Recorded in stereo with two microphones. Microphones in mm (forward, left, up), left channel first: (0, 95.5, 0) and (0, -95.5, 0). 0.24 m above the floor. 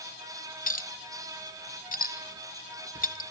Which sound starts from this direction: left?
A clink, at 0.7 s.